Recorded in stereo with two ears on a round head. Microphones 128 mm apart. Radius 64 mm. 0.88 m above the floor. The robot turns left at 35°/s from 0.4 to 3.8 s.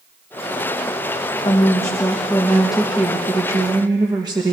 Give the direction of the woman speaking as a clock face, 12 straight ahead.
11 o'clock.